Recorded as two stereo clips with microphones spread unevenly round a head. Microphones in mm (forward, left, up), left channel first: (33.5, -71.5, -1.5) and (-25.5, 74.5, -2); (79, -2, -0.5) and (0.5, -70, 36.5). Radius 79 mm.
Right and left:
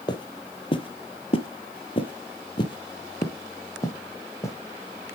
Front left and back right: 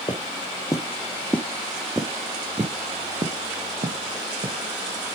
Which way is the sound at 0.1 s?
15° right.